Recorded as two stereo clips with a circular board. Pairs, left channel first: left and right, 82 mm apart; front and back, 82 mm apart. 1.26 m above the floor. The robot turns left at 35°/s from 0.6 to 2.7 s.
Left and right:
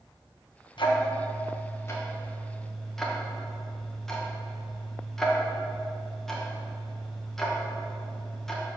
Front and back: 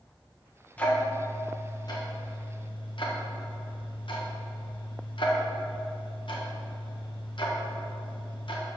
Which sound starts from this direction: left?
Ticking, at 0.8 s.